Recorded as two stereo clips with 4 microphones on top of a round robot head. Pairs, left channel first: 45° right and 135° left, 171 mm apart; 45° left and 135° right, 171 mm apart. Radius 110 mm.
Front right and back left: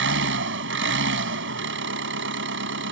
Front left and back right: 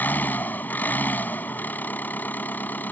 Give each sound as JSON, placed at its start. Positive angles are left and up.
{"t": 0.0, "sound": "an engine running", "azimuth_deg": 125}